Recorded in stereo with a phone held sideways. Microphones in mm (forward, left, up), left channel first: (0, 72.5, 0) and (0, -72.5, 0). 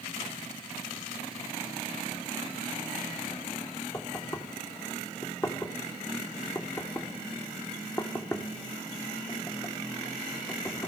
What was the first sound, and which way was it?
Knocking, 20° left (ahead or behind).